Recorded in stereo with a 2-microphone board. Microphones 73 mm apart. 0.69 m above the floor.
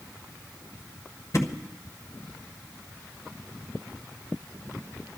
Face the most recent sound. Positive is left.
turn(degrees=50)  # may be behind; listen again after turning